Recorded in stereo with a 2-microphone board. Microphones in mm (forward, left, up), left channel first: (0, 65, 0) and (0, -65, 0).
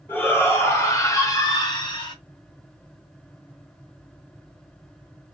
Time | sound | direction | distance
0.1 | a shout | 15° left (ahead or behind) | 1.9 m